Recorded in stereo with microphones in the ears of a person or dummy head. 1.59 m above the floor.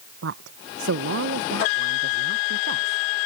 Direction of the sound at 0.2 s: 75° right (ahead or behind).